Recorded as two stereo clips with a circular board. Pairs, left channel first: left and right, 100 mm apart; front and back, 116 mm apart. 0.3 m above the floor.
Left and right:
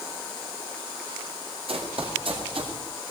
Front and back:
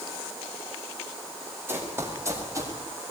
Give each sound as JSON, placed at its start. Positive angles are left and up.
{"t": 1.7, "sound": "running footsteps", "azimuth_deg": -110, "distance_m": 6.0}